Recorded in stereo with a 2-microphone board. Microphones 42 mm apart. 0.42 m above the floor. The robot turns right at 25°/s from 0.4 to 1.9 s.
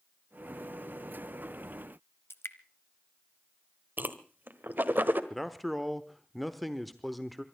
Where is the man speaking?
Centre (ahead or behind), 0.9 m.